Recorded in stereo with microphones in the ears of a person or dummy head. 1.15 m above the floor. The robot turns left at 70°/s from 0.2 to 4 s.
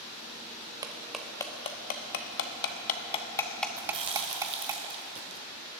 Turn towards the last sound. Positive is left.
turn(degrees=-35)  # may be behind; listen again after turning